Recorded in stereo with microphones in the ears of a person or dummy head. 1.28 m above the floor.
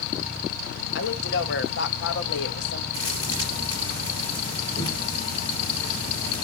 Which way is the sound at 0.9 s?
65° left (ahead or behind).